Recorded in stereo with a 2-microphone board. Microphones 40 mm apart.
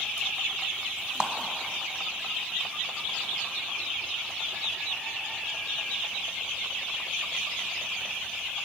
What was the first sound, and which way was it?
A clap, 25° right (ahead or behind).